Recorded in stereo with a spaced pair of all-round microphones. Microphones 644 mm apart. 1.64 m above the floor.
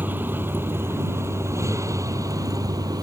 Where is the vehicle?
5° right (ahead or behind).